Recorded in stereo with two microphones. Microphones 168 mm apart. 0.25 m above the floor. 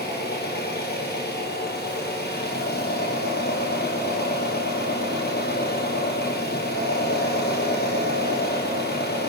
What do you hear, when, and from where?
0.0 s an engine running: 80° left, 1.7 m